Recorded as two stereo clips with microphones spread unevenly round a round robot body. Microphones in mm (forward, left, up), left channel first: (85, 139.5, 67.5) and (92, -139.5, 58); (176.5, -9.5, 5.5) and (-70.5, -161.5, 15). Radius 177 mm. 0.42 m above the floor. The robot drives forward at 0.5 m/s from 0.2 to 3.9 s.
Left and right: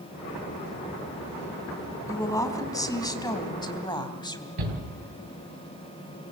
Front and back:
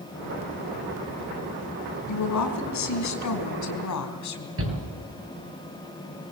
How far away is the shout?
About 8 m.